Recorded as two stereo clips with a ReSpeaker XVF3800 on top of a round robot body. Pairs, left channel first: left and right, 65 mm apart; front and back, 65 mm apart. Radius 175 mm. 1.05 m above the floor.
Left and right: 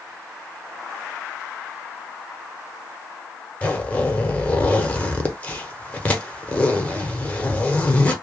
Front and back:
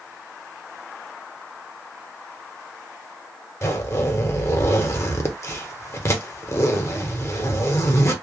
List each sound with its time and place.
3.6 s a zipper: 30° left, 1.0 m